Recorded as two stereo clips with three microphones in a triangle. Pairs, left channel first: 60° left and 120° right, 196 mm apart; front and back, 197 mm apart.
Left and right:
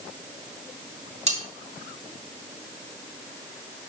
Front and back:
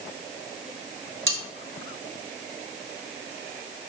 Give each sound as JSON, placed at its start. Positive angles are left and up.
{"t": 1.3, "sound": "cutlery clinking", "azimuth_deg": -175, "distance_m": 2.5}